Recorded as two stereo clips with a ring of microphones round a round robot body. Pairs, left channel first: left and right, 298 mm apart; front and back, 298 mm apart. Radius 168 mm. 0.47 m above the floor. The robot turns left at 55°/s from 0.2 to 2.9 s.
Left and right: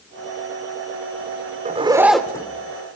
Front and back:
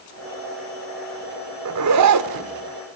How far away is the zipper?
About 1.2 m.